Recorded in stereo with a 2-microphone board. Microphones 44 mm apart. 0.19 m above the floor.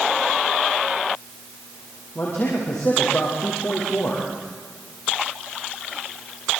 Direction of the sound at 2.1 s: 55° left (ahead or behind).